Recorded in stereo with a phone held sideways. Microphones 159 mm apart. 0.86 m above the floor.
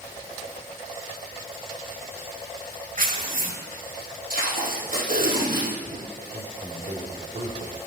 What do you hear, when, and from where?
3.0 s tearing paper: 60° right (ahead or behind), 1.3 m
4.3 s tape being pulled: 65° right (ahead or behind), 5 m
6.3 s a man speaking: 50° right (ahead or behind), 2.5 m